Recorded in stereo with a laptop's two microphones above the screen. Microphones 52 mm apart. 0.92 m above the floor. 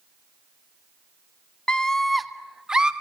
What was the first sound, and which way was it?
A scream, 20° left (ahead or behind).